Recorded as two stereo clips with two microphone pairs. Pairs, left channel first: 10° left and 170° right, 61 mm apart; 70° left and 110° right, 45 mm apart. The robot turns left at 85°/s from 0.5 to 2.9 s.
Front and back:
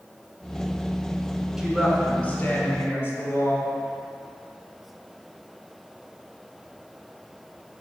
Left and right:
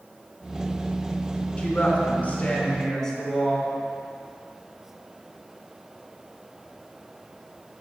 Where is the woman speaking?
120° left, 1.6 m; by 3.7 s 10° left, 1.6 m.